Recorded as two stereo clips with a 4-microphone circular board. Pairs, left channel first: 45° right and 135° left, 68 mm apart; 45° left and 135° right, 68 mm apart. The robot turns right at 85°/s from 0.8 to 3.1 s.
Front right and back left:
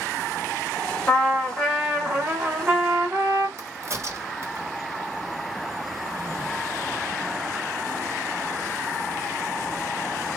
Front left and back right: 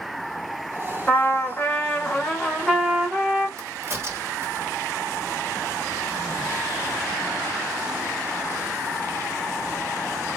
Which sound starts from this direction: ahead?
A trumpet, at 1.1 s.